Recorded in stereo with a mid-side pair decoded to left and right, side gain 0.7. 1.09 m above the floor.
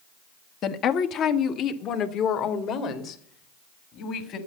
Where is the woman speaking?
50° left, 1.2 m; by 4.4 s 55° left, 3 m.